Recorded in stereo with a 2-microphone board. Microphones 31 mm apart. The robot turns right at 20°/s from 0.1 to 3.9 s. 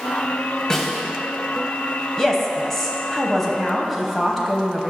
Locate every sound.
0.7 s a snare drum: 20° left (ahead or behind), 1.2 m; by 1.0 s 15° left (ahead or behind), 1.2 m
2.2 s a woman speaking: 15° left (ahead or behind), 1.0 m; by 4.9 s centre (ahead or behind), 1.0 m